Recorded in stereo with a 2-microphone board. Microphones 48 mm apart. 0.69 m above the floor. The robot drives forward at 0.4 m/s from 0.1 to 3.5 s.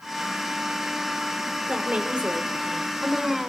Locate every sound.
1.6 s a woman speaking: 25° right (ahead or behind), 2.5 m; by 3.4 s 20° right (ahead or behind), 3.5 m